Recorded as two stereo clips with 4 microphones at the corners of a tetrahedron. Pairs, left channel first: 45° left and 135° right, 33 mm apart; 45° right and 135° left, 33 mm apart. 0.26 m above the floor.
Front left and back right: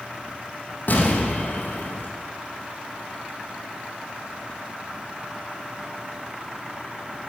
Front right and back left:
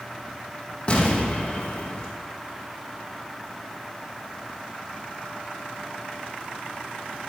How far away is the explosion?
About 2.5 m.